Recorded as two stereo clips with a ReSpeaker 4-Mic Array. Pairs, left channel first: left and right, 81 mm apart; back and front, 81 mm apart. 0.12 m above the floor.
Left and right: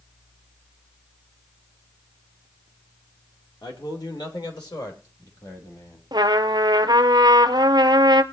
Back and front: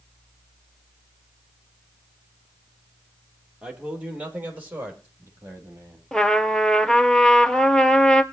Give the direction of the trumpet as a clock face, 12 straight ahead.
3 o'clock.